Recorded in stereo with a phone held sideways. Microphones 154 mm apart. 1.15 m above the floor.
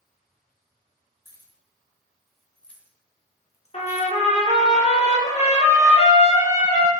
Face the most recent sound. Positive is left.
turn(degrees=45)  # may be behind; listen again after turning